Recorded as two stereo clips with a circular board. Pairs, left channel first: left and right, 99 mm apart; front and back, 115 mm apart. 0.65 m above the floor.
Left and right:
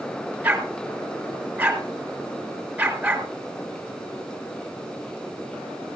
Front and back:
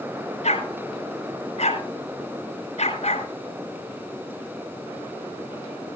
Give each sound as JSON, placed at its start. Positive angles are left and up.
{"t": 0.4, "sound": "a dog barking", "azimuth_deg": -20, "distance_m": 4.0}